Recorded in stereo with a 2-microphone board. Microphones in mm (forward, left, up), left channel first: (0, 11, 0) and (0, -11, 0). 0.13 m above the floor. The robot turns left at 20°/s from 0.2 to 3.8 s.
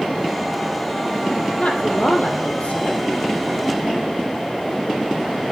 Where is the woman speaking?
65° left (ahead or behind), 3.5 m; by 3.0 s 70° left (ahead or behind), 3.5 m.